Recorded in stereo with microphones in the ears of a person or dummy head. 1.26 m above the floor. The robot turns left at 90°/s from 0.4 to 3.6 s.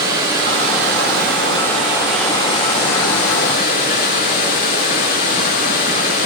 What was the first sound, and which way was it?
Running water, 15° right.